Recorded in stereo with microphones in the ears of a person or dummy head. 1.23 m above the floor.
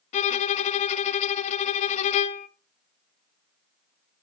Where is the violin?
40° left (ahead or behind), 0.6 m.